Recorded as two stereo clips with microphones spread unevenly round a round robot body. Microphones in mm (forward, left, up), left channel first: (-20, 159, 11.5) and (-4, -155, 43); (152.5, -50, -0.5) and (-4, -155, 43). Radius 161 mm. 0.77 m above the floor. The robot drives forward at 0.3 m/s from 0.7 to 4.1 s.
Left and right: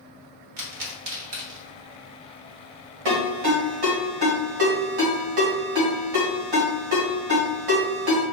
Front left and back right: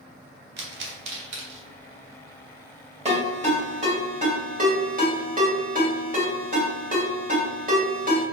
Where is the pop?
115° right, 1.2 m; by 1.7 s 125° right, 1.4 m.